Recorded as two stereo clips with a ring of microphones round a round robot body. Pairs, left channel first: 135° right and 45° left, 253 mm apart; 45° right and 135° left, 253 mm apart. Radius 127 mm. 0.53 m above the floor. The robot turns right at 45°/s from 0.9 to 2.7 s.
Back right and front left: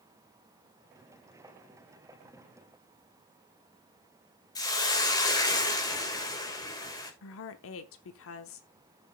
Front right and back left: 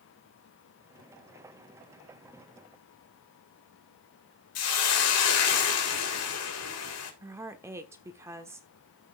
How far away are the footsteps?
I don't hear footsteps.